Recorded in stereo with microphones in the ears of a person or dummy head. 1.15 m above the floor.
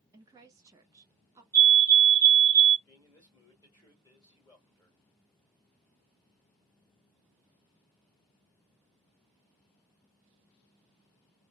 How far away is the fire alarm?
About 1.7 m.